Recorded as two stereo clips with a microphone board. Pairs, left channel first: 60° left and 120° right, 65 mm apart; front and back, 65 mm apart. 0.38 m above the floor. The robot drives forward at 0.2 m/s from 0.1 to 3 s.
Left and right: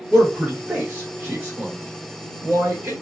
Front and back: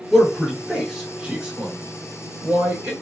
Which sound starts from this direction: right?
A man speaking, at 0.1 s.